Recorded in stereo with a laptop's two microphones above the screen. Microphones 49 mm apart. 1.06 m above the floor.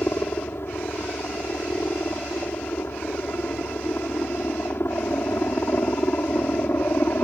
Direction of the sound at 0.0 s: 55° left (ahead or behind).